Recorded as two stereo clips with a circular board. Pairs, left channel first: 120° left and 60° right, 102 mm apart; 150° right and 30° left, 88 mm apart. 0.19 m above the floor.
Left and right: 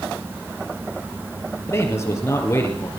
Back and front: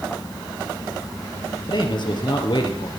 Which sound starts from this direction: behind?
A man speaking, at 1.7 s.